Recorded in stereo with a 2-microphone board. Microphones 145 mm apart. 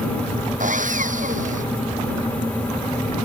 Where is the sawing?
65° right (ahead or behind).